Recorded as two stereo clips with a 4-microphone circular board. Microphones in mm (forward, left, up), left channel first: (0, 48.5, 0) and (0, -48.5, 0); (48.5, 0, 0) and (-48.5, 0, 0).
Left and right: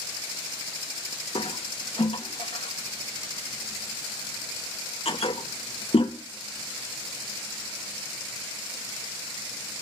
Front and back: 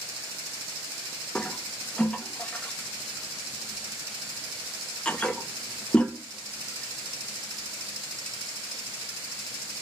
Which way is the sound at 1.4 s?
80° left.